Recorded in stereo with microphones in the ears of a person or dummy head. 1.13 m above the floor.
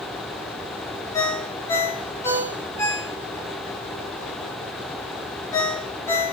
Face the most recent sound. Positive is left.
turn(degrees=25)  # may be behind; listen again after turning